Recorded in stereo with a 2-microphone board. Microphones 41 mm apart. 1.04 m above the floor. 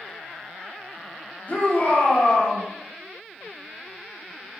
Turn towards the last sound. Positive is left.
turn(degrees=40)  # may be behind; listen again after turning